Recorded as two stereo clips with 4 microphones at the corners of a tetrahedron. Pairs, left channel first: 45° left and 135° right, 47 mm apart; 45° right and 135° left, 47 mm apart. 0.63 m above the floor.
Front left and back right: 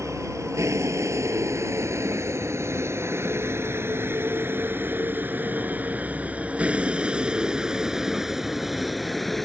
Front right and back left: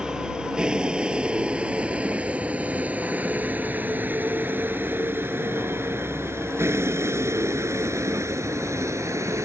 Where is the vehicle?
150° right; by 9.4 s 130° left.